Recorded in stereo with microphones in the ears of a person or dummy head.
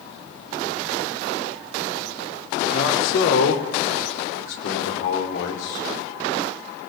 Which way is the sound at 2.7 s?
75° left (ahead or behind).